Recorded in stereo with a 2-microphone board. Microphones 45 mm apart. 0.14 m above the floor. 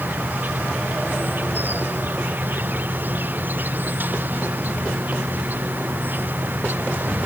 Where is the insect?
40° right (ahead or behind).